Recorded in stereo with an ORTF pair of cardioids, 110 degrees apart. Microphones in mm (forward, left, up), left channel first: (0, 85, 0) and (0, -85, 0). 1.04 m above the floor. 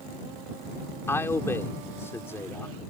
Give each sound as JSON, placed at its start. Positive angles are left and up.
{"t": 1.1, "sound": "a man speaking", "azimuth_deg": 15}